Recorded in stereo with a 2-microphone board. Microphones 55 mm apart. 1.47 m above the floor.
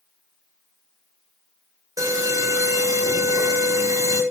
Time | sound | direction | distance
2.0 | an alarm | 85° right | 8 m